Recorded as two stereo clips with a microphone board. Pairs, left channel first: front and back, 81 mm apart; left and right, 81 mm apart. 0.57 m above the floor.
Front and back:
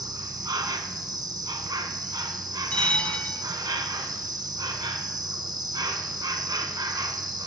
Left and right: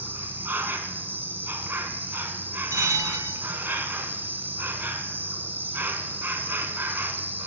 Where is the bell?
70° right, 0.6 m.